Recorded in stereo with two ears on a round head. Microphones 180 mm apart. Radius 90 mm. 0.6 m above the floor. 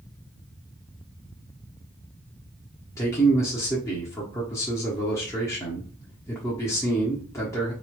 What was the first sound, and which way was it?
A man speaking, 15° left (ahead or behind).